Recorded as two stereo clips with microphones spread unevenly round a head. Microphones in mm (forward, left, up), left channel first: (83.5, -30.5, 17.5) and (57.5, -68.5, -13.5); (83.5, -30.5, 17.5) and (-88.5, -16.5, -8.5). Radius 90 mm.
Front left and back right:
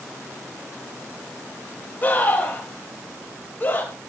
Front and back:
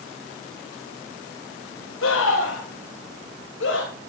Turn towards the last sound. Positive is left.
turn(degrees=20)